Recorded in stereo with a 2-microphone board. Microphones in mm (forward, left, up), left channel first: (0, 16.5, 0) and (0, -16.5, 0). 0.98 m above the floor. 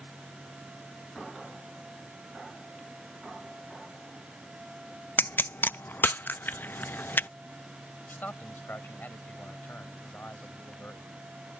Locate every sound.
5.2 s a pop: 85° left
8.1 s a man speaking: 75° left (ahead or behind)